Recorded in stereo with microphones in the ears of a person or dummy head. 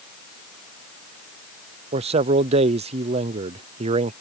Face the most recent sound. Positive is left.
turn(degrees=-30)  # may be behind; listen again after turning